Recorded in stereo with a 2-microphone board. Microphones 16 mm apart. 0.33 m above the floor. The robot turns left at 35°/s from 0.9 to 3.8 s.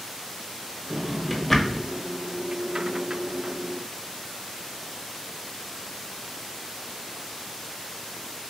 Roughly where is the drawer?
Centre.